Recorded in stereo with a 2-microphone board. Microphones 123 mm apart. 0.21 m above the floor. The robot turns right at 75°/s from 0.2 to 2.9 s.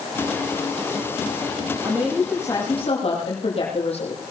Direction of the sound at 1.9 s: 20° right.